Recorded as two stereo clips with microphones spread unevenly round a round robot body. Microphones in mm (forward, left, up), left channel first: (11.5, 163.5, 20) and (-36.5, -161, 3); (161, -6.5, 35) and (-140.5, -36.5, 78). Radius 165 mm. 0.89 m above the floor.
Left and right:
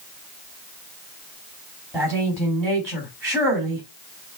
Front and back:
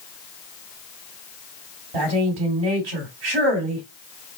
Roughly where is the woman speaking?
Behind.